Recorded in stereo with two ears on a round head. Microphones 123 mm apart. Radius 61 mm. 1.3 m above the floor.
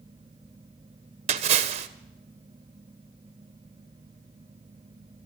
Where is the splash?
50° right (ahead or behind), 1.0 m.